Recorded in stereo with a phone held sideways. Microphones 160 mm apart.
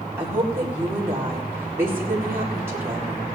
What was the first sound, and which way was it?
A woman speaking, 15° right (ahead or behind).